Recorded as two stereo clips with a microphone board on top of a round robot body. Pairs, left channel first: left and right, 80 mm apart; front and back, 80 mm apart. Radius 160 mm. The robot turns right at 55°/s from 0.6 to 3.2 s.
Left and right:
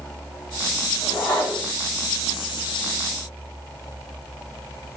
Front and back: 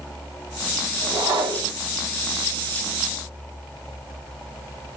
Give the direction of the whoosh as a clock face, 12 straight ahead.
7 o'clock.